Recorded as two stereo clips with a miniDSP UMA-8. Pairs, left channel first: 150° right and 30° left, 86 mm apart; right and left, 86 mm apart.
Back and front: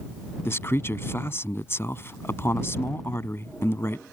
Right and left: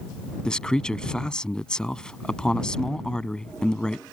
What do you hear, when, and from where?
0.5 s a man speaking: 160° right